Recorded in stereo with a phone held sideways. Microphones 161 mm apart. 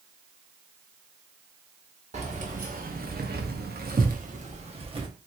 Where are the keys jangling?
40° right (ahead or behind), 1.1 m; by 5.1 s 30° right (ahead or behind), 1.0 m.